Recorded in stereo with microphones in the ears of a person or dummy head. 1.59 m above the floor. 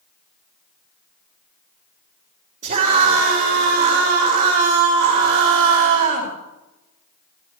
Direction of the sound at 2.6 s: 35° right (ahead or behind).